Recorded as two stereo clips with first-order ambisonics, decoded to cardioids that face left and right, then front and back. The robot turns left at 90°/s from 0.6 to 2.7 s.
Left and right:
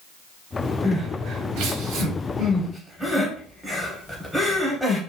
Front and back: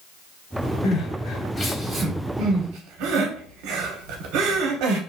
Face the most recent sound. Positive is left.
turn(degrees=-175)